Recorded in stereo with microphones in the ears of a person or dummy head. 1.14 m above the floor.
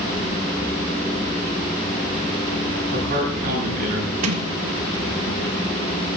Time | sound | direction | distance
2.9 | a man speaking | 50° right (ahead or behind) | 9 m
4.2 | a sliding door | 80° right | 1.8 m